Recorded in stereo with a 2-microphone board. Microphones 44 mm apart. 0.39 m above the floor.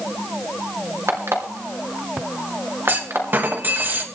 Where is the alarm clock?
70° right (ahead or behind), 3 m.